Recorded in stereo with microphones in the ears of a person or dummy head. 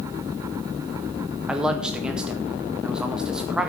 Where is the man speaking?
5° right (ahead or behind), 1.7 m.